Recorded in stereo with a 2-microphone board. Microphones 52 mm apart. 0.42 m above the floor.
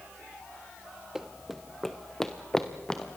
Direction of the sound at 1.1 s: 10° right (ahead or behind).